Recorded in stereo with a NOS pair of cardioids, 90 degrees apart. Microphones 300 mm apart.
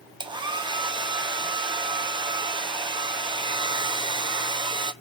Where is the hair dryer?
15° right, 0.8 m.